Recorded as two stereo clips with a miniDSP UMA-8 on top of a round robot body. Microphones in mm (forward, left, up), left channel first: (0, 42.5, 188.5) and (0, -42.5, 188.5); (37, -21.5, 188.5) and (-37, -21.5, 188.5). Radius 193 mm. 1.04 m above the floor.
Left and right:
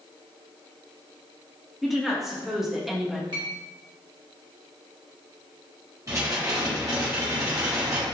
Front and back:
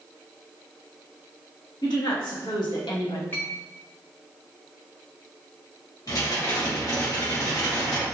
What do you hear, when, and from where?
1.8 s a woman speaking: 5° right, 2.5 m
3.3 s a clink: 65° right, 1.7 m
6.1 s dishes clattering: 35° right, 2 m